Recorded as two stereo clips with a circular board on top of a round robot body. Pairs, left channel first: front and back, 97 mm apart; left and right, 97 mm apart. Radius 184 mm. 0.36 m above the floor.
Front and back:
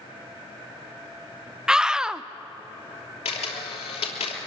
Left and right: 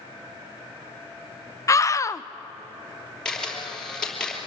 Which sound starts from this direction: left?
A scream, at 1.7 s.